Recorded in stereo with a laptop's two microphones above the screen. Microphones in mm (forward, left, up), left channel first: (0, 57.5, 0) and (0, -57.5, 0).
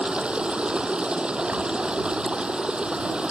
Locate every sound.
0.0 s running water: 10° right (ahead or behind)